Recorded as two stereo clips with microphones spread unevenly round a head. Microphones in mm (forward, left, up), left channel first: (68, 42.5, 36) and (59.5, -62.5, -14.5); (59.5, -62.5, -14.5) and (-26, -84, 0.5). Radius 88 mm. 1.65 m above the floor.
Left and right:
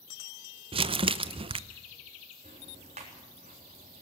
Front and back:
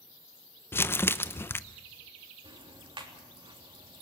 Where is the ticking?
145° right, 3.5 m.